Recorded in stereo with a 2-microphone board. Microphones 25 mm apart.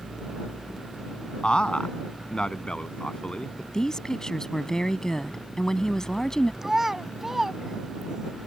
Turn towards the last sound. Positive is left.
turn(degrees=-15)  # may be behind; listen again after turning